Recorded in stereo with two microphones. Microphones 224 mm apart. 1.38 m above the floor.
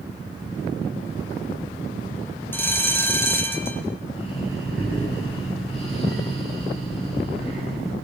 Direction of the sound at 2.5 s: 10° left (ahead or behind).